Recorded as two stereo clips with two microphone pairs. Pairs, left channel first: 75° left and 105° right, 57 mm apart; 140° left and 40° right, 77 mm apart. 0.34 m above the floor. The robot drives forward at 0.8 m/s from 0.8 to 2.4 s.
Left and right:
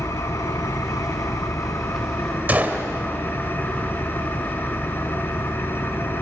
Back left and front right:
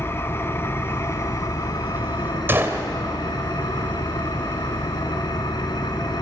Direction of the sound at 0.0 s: 85° left.